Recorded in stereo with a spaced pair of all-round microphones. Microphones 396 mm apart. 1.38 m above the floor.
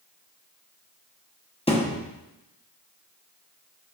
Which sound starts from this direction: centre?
A thud, at 1.7 s.